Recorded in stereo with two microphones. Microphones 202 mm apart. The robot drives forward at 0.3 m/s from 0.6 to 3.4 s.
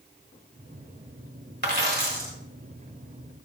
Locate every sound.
1.6 s a dropped coin: 55° right (ahead or behind), 1.6 m; by 2.3 s 50° right (ahead or behind), 1.7 m